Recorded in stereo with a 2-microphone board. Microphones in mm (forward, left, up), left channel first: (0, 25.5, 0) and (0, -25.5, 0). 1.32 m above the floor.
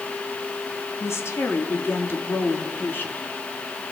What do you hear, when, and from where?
1.0 s a woman speaking: 60° left (ahead or behind), 3.5 m; by 3.3 s 40° left (ahead or behind), 4 m